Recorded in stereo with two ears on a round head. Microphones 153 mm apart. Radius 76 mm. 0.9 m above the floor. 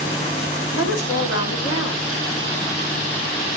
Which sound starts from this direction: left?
A woman speaking, at 0.7 s.